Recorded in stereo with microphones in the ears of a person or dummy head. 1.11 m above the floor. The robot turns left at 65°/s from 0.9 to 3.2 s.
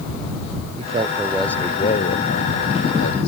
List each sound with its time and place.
0.8 s a man speaking: 150° right; by 3.3 s 60° left